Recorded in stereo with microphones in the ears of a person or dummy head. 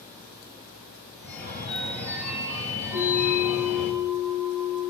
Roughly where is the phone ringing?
Centre.